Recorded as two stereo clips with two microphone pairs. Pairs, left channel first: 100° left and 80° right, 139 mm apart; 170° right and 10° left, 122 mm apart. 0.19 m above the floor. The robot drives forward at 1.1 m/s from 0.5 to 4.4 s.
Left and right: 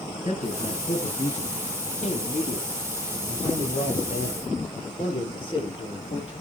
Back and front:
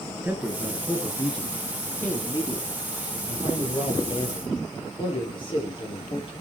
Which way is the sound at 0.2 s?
85° left.